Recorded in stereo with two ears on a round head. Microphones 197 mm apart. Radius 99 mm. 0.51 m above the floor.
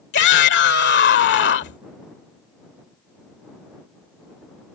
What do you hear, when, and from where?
0.1 s a shout: 50° left (ahead or behind)